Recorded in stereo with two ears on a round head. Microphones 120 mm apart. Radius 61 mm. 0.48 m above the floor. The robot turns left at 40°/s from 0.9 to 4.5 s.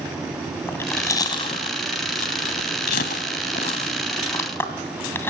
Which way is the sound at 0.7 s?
20° left (ahead or behind).